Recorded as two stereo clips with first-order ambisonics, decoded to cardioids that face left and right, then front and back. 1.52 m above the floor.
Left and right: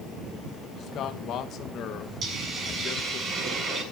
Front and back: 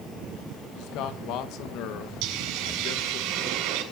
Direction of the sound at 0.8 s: 35° left.